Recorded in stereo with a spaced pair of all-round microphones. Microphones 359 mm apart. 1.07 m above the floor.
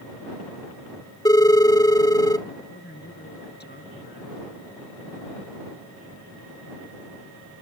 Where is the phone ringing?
10° left (ahead or behind).